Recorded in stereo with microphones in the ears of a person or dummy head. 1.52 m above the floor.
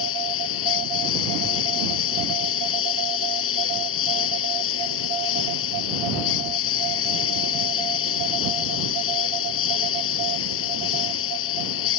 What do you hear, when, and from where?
0.0 s a lawn mower: 75° left (ahead or behind)